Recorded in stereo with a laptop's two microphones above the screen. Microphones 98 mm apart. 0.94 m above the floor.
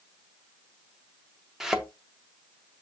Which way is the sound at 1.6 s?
5° right (ahead or behind).